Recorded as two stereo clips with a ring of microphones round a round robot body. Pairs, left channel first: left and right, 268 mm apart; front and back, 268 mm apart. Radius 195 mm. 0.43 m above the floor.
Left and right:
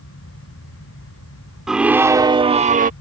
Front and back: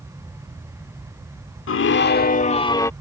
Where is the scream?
Straight ahead; by 2.9 s 75° right.